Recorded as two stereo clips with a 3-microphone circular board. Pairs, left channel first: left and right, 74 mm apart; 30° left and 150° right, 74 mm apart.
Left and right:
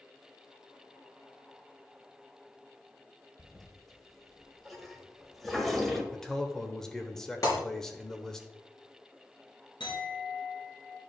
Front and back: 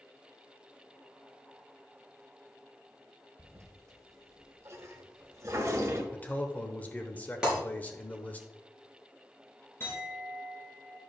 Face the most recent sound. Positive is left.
turn(degrees=90)